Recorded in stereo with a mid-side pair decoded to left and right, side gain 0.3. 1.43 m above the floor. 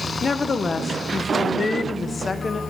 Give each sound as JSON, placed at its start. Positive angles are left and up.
{"t": 0.2, "sound": "a woman speaking", "azimuth_deg": 50, "distance_m": 1.1}